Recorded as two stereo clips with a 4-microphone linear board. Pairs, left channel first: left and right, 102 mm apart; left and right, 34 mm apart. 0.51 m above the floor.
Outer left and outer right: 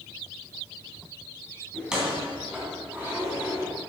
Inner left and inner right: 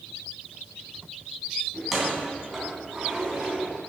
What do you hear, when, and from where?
1.7 s keys jangling: 10° right (ahead or behind), 3.5 m; by 3.7 s 20° right (ahead or behind), 4 m